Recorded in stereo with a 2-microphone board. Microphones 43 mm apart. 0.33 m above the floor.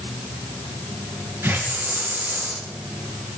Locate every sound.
1.4 s a hiss: 65° right (ahead or behind), 3.5 m